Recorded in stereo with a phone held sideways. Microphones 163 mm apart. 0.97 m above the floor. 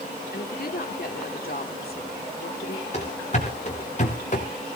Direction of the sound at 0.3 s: 60° left (ahead or behind).